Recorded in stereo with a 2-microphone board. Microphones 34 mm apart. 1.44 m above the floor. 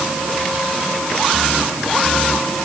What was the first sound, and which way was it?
Only background noise.